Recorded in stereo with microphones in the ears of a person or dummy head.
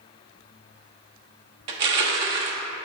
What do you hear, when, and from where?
1.7 s crushing: 30° right (ahead or behind), 0.7 m